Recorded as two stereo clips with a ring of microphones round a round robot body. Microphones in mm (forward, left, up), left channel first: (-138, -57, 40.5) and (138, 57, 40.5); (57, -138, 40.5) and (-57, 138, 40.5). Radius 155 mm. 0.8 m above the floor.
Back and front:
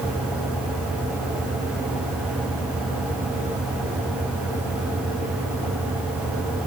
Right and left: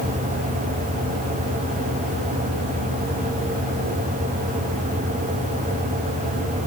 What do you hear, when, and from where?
Only background noise.